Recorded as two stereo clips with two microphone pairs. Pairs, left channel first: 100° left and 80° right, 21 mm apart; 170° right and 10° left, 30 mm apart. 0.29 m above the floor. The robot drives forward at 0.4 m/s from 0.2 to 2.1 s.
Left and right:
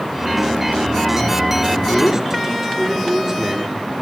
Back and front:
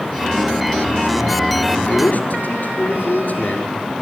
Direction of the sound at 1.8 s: 145° right.